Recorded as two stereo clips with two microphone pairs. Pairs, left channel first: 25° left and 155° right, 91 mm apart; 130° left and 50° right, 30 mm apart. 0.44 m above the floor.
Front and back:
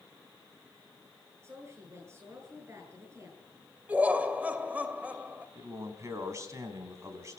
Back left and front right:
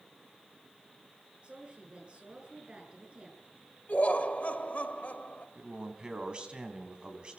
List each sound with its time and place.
1.4 s a woman speaking: 95° right, 8 m
3.9 s laughter: 135° left, 2 m
5.5 s a man speaking: 100° right, 4 m